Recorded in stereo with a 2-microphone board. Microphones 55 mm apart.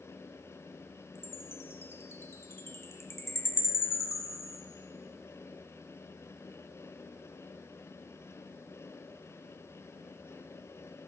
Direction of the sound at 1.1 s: 50° left (ahead or behind).